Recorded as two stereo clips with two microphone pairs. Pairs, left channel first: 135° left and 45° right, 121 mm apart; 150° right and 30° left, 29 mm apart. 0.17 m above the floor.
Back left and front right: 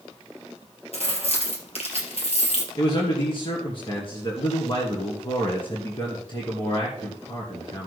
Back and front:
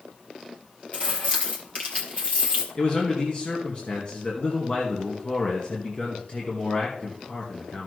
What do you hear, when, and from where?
0.9 s keys jangling: 165° left, 3 m
2.8 s a man speaking: 170° left, 2.5 m